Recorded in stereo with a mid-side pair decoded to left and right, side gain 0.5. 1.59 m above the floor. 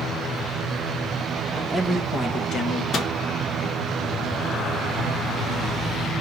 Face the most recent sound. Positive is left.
turn(degrees=45)